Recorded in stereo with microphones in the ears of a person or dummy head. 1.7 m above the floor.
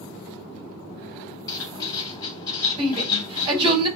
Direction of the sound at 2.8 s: 25° right (ahead or behind).